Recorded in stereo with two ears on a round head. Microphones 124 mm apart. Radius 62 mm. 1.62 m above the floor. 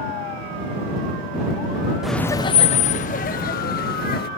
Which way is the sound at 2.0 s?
5° right (ahead or behind).